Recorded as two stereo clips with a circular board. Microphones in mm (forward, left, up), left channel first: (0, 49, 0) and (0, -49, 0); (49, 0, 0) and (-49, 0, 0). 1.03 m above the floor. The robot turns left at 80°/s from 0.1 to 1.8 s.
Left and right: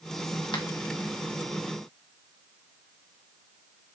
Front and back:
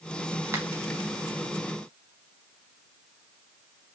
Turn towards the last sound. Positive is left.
turn(degrees=20)